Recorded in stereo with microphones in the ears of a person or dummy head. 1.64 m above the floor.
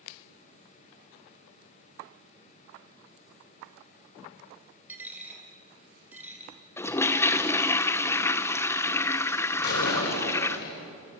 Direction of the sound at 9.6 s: 60° left (ahead or behind).